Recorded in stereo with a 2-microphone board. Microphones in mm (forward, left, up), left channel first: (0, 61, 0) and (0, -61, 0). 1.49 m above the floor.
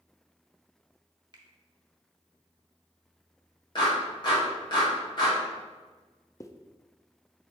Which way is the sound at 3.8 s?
40° left (ahead or behind).